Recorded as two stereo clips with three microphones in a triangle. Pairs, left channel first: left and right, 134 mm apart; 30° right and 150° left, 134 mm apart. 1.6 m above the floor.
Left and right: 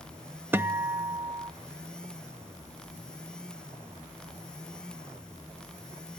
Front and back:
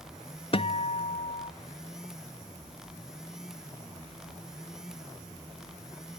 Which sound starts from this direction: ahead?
A guitar, at 0.5 s.